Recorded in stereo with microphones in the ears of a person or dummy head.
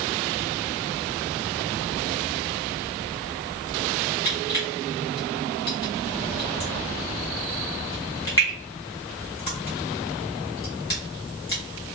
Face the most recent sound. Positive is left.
turn(degrees=20)  # may be behind; listen again after turning